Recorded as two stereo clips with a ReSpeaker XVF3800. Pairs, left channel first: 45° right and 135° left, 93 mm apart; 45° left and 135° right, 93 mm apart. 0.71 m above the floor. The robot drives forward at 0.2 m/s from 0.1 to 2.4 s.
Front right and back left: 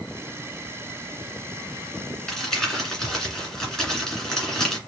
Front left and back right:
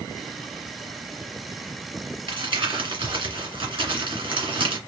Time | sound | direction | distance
2.3 | crumpling | 130° right | 2.0 m